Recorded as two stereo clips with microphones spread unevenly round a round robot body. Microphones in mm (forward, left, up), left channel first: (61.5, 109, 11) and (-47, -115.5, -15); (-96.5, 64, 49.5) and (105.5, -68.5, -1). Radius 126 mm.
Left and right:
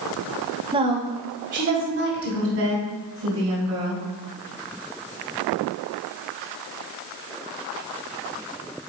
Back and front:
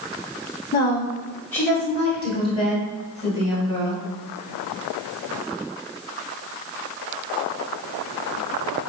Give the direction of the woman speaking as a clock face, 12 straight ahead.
4 o'clock.